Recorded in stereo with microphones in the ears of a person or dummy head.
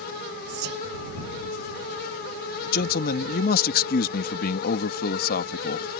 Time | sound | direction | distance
0.5 | whispering | 55° right (ahead or behind) | ?
2.7 | a man speaking | 55° left (ahead or behind) | ?